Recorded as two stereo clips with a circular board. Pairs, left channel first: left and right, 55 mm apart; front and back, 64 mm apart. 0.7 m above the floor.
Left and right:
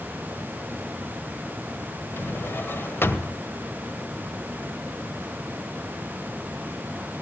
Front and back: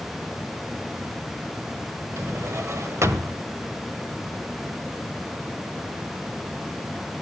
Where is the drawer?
140° left, 1.5 m.